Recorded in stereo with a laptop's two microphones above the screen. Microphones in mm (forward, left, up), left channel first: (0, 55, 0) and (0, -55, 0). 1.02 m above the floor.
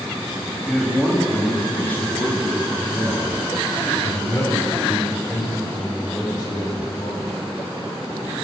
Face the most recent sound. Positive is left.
turn(degrees=40)  # may be behind; listen again after turning